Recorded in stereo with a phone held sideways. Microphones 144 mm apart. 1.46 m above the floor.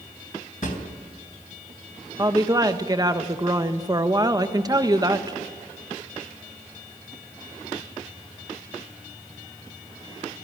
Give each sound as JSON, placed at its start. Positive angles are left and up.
{"t": 0.6, "sound": "a drawer", "side_deg": 65, "distance_m": 3.0}
{"t": 2.2, "sound": "a woman speaking", "side_deg": -25, "distance_m": 1.3}